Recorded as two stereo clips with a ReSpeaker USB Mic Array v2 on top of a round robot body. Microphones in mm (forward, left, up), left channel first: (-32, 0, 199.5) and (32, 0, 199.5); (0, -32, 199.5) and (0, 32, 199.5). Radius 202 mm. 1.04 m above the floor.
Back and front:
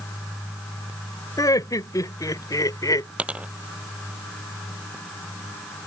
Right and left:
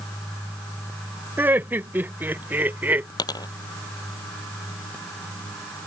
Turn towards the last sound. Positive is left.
turn(degrees=-70)